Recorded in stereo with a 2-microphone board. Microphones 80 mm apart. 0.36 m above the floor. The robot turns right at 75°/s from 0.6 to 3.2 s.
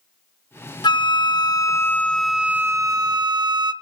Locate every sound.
0.8 s a flute: 75° left, 0.5 m; by 3.7 s 110° right, 0.5 m